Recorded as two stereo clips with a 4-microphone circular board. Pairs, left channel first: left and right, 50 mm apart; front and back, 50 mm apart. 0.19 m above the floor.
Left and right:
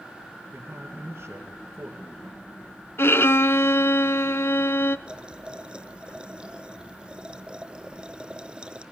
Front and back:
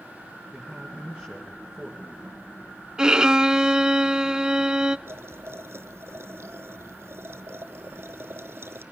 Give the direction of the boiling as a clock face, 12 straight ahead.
5 o'clock.